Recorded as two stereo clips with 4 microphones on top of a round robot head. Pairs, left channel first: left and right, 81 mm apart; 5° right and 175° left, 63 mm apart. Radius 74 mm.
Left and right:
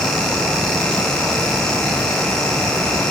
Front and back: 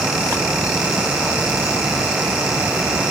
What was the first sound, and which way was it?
Only background noise.